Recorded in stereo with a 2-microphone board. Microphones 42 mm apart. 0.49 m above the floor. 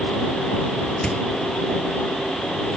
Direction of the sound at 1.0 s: 20° left (ahead or behind).